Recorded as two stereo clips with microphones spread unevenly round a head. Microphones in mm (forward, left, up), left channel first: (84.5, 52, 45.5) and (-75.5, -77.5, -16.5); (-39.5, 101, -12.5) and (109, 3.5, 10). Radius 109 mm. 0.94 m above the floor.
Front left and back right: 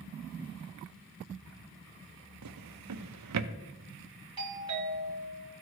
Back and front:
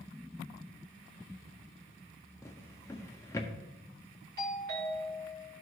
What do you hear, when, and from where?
2.4 s a drawer: 135° right, 0.6 m
4.4 s a doorbell: 85° right, 3 m